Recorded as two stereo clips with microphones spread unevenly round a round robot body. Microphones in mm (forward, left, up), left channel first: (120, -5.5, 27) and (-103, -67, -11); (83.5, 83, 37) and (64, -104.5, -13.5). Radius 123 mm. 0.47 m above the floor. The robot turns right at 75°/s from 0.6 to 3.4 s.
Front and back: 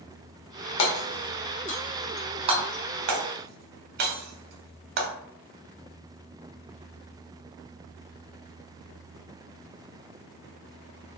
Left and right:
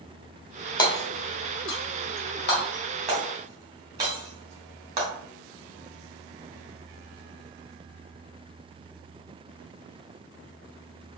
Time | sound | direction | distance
0.8 | hammering | 10° left | 1.0 m